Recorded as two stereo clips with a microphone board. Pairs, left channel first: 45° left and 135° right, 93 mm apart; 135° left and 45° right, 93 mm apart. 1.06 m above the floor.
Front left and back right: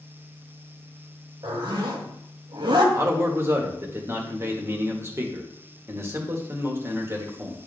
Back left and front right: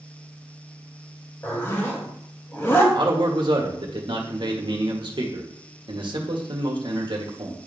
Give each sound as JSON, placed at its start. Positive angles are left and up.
{"t": 1.4, "sound": "a zipper", "azimuth_deg": -160, "distance_m": 1.8}
{"t": 2.9, "sound": "a man speaking", "azimuth_deg": -75, "distance_m": 1.4}